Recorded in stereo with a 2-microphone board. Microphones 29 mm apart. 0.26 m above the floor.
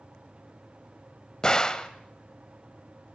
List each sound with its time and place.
1.4 s a gunshot: 25° left (ahead or behind), 1.0 m